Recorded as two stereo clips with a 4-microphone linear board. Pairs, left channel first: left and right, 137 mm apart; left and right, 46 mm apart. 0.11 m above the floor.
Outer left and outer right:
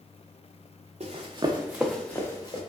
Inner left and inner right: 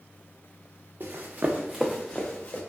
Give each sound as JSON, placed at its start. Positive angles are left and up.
{"t": 1.0, "sound": "running footsteps", "side_deg": -50, "distance_m": 0.7}